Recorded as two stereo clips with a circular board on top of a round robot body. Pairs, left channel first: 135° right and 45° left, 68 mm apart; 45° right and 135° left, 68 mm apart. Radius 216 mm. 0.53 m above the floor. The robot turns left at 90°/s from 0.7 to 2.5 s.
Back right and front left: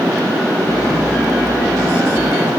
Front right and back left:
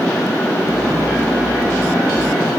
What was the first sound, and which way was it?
Only background noise.